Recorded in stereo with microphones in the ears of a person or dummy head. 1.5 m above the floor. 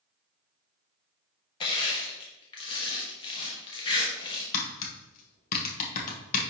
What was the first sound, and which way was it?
Crushing, 30° left (ahead or behind).